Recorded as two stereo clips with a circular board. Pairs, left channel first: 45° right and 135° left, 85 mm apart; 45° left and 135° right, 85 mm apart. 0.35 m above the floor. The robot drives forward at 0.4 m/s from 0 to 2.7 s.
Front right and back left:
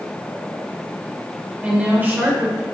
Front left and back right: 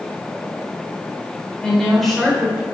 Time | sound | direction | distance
1.6 | a woman speaking | 105° left | 1.0 m